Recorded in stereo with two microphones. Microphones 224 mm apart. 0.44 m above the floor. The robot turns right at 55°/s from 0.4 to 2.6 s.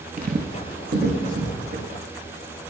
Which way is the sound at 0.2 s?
40° right (ahead or behind).